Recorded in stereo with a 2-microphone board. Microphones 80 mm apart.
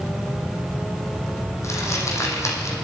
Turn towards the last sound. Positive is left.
turn(degrees=40)  # may be behind; listen again after turning